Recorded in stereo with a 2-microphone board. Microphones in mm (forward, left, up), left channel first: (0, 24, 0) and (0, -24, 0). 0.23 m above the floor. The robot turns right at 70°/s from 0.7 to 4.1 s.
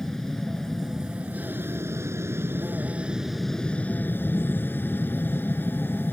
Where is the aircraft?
175° left; by 6.1 s 50° left.